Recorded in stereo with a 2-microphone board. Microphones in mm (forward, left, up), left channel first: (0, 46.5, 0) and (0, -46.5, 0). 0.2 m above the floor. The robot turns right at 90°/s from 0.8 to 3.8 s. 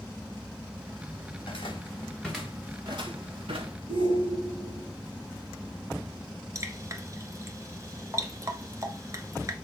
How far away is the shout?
About 3.5 m.